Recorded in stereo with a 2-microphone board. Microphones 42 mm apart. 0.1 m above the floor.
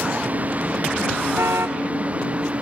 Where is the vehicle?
40° right (ahead or behind); by 2.6 s 30° right (ahead or behind).